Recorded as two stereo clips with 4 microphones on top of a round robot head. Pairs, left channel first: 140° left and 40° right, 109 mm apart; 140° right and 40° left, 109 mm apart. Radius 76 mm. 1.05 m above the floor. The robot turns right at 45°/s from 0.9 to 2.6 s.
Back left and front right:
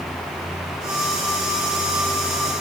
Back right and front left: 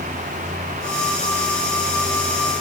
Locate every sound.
Only background noise.